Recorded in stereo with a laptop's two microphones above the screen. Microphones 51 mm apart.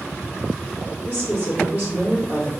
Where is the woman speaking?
40° right (ahead or behind), 1.7 m.